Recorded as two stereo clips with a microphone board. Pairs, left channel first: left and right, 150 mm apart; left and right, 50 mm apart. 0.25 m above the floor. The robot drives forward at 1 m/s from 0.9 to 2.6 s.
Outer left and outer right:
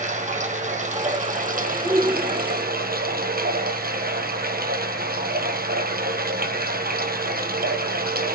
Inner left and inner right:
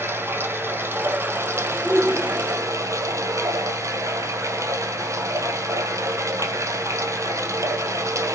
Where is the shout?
40° right (ahead or behind), 6.5 m; by 2.7 s 45° right (ahead or behind), 6 m.